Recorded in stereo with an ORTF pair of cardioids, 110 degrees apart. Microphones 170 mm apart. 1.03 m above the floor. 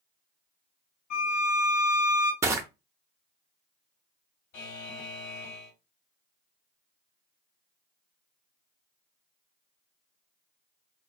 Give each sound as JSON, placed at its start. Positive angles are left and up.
{"t": 1.1, "sound": "a violin", "azimuth_deg": 60, "distance_m": 1.2}
{"t": 2.4, "sound": "crushing", "azimuth_deg": -15, "distance_m": 0.6}
{"t": 4.5, "sound": "a buzzer", "azimuth_deg": 65, "distance_m": 1.5}